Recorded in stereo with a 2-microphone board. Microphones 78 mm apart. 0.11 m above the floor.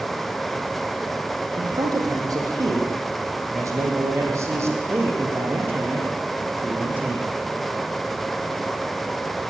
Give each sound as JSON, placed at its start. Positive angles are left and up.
{"t": 1.6, "sound": "a man speaking", "side_deg": -60, "distance_m": 5.0}